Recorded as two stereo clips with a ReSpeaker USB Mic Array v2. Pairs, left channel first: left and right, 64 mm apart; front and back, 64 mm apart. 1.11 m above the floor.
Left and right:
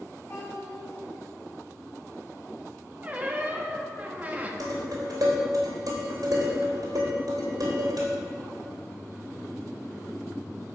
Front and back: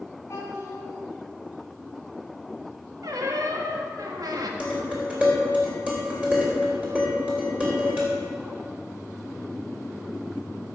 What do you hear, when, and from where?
0.3 s a child speaking: 50° left, 4.5 m
3.0 s a squeak: 155° right, 1.1 m
4.6 s dishes clattering: 110° right, 3 m